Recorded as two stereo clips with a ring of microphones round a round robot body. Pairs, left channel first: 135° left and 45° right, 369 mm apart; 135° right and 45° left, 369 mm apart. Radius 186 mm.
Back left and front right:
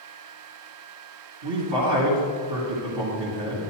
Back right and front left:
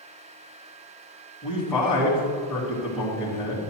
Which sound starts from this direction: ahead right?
A man speaking, at 1.4 s.